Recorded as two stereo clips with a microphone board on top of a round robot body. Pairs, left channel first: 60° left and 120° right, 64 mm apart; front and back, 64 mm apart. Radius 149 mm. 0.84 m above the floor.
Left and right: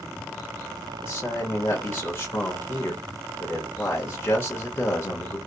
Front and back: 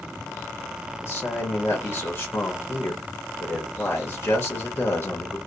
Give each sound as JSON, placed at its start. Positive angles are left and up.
{"t": 1.0, "sound": "a man speaking", "azimuth_deg": 35, "distance_m": 1.0}